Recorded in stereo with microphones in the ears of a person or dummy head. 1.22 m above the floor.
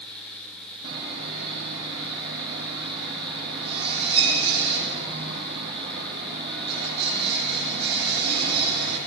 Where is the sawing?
70° right (ahead or behind), 9 m.